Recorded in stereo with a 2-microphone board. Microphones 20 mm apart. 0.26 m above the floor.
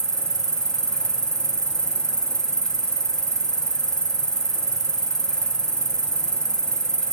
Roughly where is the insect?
Left.